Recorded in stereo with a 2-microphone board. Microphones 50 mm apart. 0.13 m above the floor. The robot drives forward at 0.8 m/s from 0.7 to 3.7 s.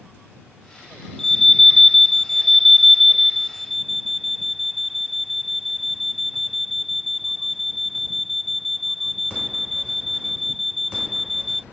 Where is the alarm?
5° left (ahead or behind); by 11.6 s centre (ahead or behind).